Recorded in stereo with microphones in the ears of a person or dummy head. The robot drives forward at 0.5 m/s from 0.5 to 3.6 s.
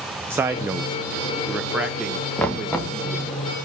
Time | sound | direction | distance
0.3 | a man speaking | 10° right (ahead or behind) | 0.6 m
2.4 | knocking | 5° left (ahead or behind) | 1.1 m